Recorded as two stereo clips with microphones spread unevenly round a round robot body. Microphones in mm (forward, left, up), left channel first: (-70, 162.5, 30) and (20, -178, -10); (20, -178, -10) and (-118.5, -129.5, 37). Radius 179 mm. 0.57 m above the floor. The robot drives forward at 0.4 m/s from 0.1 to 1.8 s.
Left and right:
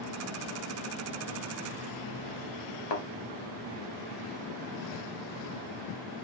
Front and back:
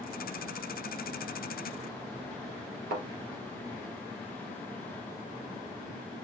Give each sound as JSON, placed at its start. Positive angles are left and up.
{"t": 2.9, "sound": "a thud", "azimuth_deg": 130, "distance_m": 3.0}